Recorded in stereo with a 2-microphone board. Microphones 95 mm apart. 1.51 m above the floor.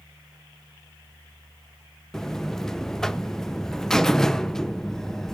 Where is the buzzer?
5° left (ahead or behind), 0.5 m.